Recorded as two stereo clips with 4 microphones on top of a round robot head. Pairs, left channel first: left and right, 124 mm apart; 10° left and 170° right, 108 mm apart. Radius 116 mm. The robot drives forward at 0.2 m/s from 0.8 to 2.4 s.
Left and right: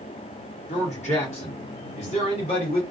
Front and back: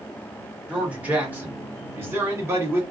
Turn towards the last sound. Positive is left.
turn(degrees=125)